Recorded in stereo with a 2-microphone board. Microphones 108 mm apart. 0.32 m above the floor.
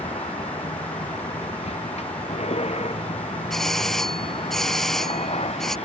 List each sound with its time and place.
0.0 s a vehicle: 80° left
3.5 s a doorbell: 5° left (ahead or behind)